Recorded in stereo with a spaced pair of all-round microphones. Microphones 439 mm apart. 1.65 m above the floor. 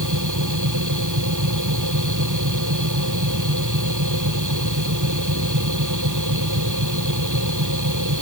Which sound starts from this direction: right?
A machine running, at 0.0 s.